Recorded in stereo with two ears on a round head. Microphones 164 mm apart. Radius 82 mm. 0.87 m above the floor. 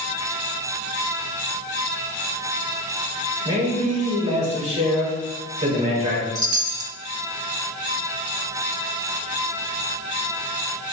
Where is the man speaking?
35° right (ahead or behind), 2.5 m.